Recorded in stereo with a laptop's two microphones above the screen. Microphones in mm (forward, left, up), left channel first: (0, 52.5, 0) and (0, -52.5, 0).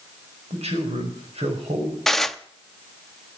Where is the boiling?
No boiling in this recording.